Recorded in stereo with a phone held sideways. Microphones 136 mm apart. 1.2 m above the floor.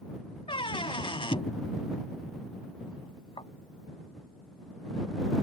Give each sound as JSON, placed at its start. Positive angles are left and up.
{"t": 0.5, "sound": "a squeak", "side_deg": 40}